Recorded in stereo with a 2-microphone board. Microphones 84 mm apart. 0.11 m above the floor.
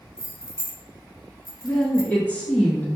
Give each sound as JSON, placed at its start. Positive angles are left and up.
{"t": 0.2, "sound": "keys jangling", "side_deg": 50, "distance_m": 1.4}
{"t": 1.6, "sound": "a woman speaking", "side_deg": 20, "distance_m": 1.3}